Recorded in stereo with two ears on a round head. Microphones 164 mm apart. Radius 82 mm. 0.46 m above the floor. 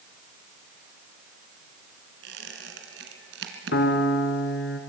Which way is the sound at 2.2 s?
70° right (ahead or behind).